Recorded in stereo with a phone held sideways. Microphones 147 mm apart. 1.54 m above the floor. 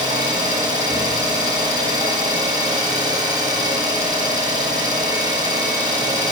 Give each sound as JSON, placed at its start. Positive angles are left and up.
{"t": 0.0, "sound": "an engine running", "side_deg": -30, "distance_m": 0.9}